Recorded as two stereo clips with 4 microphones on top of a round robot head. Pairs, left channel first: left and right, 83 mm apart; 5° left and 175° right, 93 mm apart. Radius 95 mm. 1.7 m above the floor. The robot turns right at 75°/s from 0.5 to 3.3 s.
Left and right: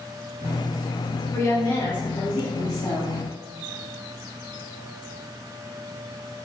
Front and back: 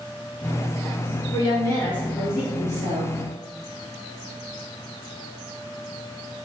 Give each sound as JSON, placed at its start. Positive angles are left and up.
{"t": 1.3, "sound": "a woman speaking", "azimuth_deg": 25, "distance_m": 2.0}